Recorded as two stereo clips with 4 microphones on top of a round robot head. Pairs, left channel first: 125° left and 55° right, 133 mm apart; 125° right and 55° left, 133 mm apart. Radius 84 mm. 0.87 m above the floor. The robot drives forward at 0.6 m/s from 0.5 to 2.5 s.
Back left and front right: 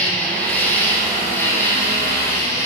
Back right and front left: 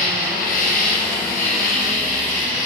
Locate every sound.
0.0 s an insect: 155° right, 3.5 m; by 2.7 s 160° right, 4.5 m